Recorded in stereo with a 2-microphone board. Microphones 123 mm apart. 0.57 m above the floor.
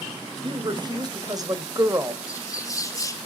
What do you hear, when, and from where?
0.4 s a woman speaking: 40° right (ahead or behind), 2.5 m; by 2.2 s 20° right (ahead or behind), 2 m
2.3 s a bird: 25° left (ahead or behind), 2 m